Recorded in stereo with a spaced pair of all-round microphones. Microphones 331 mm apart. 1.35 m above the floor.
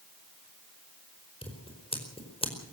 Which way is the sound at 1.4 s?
15° left (ahead or behind).